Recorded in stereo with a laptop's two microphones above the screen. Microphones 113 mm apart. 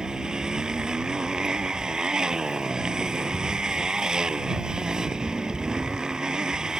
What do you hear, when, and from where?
0.0 s a motorcycle: 5° right (ahead or behind)